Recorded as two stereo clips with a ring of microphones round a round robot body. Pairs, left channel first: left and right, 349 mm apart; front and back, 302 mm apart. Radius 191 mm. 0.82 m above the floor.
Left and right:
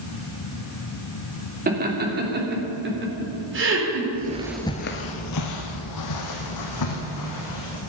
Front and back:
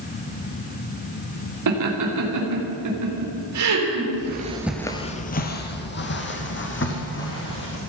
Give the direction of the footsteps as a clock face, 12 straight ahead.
5 o'clock.